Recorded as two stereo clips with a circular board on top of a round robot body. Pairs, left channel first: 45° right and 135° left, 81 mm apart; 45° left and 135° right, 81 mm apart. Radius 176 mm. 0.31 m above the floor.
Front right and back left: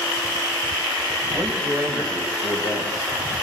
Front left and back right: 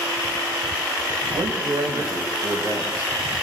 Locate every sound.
1.3 s a man speaking: 165° right, 3 m